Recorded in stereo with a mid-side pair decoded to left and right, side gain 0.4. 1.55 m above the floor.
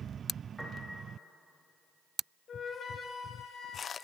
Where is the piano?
10° left, 3 m.